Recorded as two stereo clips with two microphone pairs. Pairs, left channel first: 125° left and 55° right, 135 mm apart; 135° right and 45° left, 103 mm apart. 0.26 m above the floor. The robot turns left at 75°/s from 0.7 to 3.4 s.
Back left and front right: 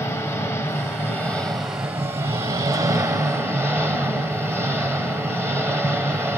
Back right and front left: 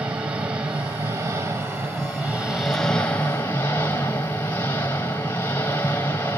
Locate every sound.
0.0 s an engine running: 100° left, 1.4 m; by 6.4 s 100° right, 1.4 m